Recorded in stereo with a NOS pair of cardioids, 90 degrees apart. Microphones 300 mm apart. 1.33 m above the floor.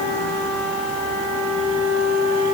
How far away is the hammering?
I don't hear hammering.